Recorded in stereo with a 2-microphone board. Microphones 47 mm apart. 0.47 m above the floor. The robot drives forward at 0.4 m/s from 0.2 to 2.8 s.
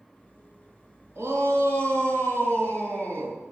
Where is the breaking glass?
I don't hear breaking glass.